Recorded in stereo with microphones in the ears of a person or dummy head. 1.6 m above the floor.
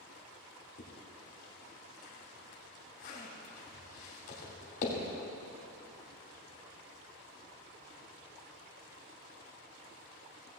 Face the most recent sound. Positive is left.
turn(degrees=55)  # may be behind; listen again after turning